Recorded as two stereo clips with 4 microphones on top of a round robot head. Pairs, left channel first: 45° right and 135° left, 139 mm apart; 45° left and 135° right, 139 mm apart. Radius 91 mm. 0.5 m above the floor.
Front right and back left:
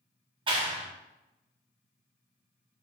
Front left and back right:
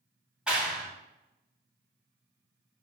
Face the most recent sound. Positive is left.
turn(degrees=145)